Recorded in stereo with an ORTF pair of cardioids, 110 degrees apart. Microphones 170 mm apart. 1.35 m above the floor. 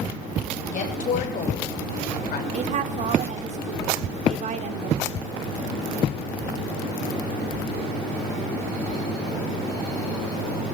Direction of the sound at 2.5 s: 50° right.